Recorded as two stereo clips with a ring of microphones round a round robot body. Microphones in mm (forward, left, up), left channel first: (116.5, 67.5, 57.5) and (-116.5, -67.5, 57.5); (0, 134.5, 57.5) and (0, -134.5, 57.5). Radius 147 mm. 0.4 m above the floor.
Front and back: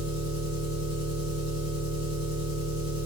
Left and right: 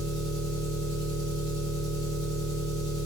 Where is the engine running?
15° left, 1.3 m.